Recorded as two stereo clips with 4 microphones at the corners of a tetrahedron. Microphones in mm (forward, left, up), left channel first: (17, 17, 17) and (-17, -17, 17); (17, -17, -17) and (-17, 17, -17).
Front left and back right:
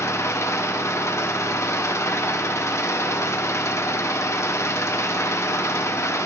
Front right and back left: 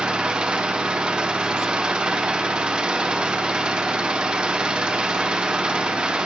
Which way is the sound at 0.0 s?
65° left.